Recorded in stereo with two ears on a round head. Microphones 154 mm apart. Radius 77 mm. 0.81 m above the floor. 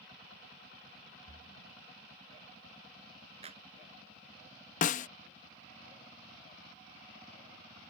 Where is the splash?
70° left (ahead or behind).